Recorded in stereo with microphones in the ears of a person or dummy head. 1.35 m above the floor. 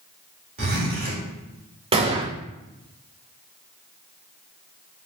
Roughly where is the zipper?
Right.